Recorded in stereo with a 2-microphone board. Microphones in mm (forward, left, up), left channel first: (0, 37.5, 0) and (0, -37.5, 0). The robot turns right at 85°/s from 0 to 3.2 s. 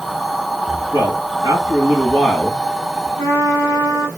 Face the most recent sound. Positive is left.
turn(degrees=55)  # may be behind; listen again after turning